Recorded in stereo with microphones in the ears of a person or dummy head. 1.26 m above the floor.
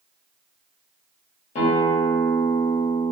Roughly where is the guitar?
Left.